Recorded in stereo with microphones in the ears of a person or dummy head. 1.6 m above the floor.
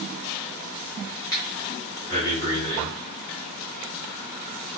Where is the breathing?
25° left (ahead or behind), 2.5 m.